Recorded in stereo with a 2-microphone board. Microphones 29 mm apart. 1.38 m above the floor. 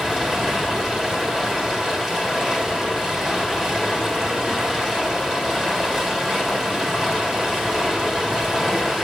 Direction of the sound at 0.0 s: 25° right (ahead or behind).